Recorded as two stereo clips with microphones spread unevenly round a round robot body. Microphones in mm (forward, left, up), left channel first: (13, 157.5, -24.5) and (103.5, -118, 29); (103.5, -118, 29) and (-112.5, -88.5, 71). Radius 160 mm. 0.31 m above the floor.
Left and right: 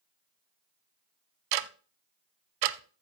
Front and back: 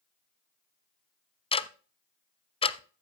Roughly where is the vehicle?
I don't hear a vehicle.